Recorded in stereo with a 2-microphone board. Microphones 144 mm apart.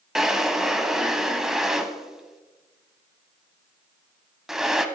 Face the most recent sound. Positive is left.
turn(degrees=-5)  # may be behind; listen again after turning